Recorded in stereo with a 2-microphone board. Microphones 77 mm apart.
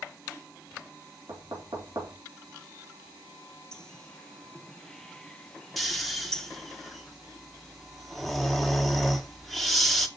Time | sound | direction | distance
1.3 | knocking | 55° right (ahead or behind) | 4 m
3.7 | a bird | 10° left (ahead or behind) | 0.7 m
5.8 | snoring | centre (ahead or behind) | 1.1 m